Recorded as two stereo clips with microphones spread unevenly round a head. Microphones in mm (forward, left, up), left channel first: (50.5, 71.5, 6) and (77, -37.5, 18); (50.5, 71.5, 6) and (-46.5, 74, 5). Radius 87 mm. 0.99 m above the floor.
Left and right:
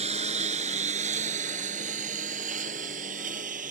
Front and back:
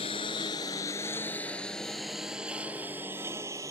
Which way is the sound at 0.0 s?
60° right.